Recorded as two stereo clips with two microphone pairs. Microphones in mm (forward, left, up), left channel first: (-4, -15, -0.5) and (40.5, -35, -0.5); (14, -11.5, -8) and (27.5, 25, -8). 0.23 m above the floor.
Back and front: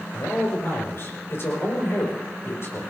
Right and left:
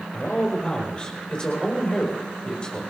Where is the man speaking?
175° right, 5.5 m.